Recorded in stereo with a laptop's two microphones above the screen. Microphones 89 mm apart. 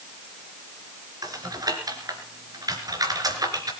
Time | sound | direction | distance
1.2 | typing on a keyboard | 45° right (ahead or behind) | 3 m